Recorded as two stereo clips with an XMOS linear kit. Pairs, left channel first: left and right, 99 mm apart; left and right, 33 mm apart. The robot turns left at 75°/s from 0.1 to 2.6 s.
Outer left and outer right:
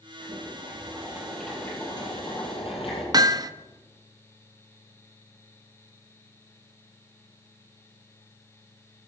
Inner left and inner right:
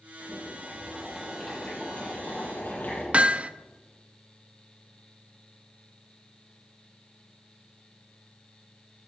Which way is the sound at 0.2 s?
95° right.